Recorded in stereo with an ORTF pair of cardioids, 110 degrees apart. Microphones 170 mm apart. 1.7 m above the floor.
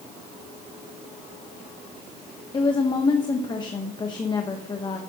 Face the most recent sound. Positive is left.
turn(degrees=25)